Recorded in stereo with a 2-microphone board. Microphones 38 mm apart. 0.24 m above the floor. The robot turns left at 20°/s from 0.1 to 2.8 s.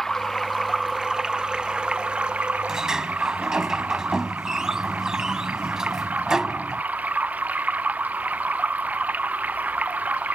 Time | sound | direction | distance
0.0 | running water | 10° left | ?
2.7 | a sliding door | 15° right (ahead or behind) | ?